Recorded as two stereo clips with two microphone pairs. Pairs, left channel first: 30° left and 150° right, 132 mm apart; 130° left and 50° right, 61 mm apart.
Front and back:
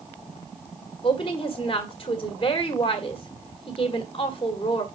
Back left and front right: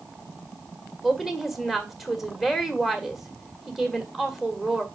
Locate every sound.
1.0 s a woman speaking: 40° left, 1.6 m